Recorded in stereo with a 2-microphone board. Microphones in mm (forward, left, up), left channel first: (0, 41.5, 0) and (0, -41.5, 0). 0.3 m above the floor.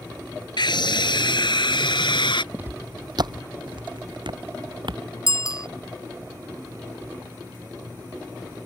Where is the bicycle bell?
45° left (ahead or behind).